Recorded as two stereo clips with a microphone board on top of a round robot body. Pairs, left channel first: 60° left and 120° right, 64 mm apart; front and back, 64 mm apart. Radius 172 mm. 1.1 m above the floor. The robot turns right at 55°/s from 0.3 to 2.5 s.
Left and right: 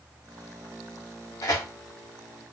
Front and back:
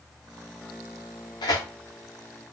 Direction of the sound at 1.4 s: 20° left.